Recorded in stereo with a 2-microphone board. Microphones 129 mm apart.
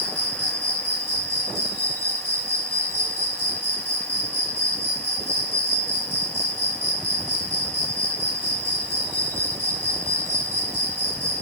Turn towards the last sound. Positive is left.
turn(degrees=20)  # may be behind; listen again after turning